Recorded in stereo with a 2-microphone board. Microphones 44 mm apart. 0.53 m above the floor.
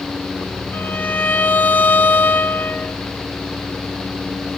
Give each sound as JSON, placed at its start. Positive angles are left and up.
{"t": 0.7, "sound": "a violin", "side_deg": 40, "distance_m": 0.6}